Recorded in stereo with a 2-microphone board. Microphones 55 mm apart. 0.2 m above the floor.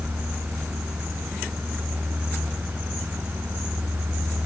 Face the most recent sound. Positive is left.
No sound to turn to.